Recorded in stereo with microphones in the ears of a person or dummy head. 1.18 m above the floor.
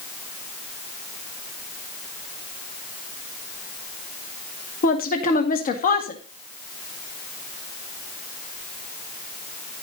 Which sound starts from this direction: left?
A woman speaking, at 4.8 s.